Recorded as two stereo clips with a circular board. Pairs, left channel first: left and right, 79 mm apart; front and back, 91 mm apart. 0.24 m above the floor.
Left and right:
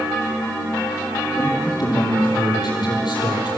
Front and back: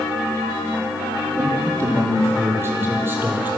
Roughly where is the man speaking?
Behind left.